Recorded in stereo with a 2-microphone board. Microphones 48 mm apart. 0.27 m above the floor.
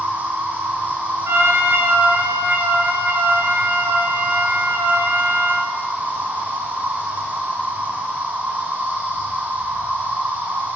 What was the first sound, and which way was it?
An insect, 35° right (ahead or behind).